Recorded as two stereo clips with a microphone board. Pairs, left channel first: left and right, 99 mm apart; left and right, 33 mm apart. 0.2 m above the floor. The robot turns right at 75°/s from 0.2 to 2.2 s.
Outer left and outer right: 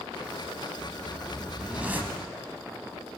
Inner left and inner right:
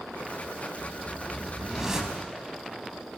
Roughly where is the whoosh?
Centre.